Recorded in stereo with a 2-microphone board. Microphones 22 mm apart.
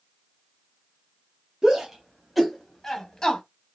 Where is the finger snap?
No finger snap in this recording.